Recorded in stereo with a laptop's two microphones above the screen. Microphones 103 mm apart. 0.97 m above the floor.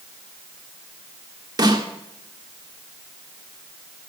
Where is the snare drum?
45° right (ahead or behind), 1.5 m.